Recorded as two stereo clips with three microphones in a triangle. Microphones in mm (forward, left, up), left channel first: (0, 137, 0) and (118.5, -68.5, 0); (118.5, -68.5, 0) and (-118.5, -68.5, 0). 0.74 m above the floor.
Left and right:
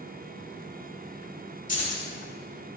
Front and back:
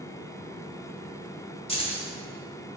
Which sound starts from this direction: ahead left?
Keys jangling, at 1.7 s.